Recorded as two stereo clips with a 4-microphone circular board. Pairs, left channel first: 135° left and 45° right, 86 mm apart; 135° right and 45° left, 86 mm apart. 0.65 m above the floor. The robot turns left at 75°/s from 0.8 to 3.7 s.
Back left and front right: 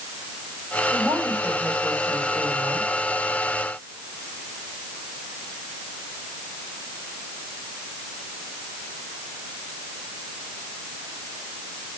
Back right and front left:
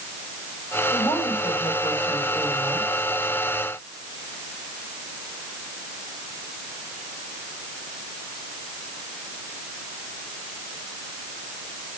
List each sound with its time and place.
0.9 s a woman speaking: 90° right, 4 m; by 3.0 s 115° left, 4 m